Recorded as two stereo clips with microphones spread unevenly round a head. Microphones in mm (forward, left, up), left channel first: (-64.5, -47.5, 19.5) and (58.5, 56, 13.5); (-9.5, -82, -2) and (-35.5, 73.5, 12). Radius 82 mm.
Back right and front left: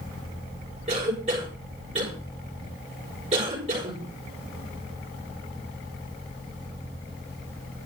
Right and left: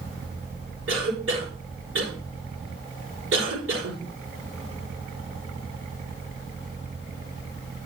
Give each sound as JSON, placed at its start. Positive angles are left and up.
{"t": 0.9, "sound": "a cough", "azimuth_deg": 95, "distance_m": 6.0}